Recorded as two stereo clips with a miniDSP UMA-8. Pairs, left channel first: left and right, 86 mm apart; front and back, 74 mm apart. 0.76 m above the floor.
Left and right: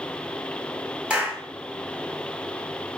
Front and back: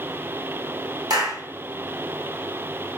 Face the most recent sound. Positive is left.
turn(degrees=-165)